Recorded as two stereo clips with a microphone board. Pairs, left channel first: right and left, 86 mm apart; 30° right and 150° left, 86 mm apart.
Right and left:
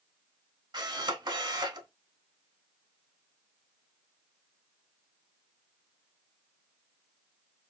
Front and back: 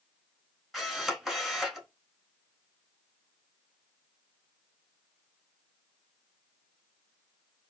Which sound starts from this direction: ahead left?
A camera shutter, at 0.7 s.